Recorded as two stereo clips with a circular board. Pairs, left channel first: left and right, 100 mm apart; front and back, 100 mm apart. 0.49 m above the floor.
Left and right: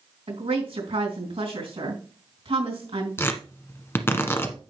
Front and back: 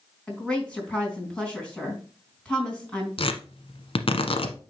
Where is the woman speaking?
80° right, 4 m.